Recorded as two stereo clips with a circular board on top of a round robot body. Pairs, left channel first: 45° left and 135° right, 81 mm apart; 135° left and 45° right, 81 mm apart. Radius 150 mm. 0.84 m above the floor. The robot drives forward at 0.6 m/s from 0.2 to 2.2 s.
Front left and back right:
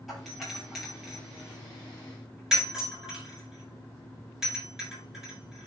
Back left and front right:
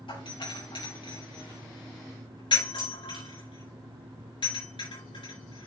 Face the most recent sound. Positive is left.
turn(degrees=140)